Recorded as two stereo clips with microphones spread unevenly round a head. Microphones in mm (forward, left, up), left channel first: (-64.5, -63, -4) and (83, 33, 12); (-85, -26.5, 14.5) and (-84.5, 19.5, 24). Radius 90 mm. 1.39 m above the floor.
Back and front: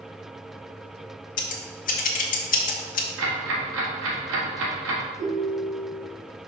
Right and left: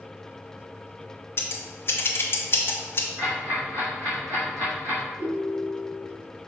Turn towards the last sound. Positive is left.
turn(degrees=75)